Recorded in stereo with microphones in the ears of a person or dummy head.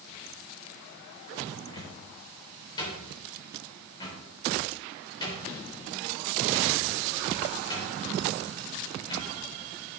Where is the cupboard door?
30° left (ahead or behind), 4 m.